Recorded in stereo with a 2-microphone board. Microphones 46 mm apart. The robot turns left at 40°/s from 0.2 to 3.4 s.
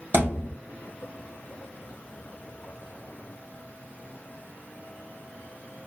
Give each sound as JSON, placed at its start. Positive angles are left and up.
{"t": 0.1, "sound": "a thud", "side_deg": -45, "distance_m": 2.0}